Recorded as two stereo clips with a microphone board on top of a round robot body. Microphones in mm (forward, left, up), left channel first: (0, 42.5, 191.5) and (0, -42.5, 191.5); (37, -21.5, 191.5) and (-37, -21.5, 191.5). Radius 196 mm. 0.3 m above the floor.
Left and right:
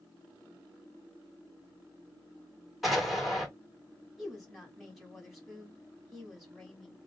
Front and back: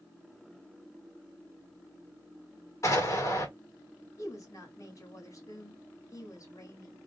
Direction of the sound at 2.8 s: 5° right.